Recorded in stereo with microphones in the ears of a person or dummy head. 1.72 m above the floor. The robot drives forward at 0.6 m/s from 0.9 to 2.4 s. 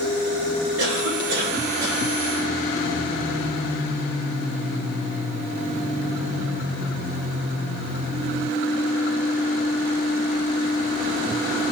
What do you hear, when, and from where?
0.8 s a cough: 80° right, 9 m